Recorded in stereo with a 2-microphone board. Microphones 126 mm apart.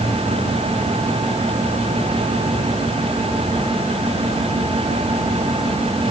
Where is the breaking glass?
I don't hear breaking glass.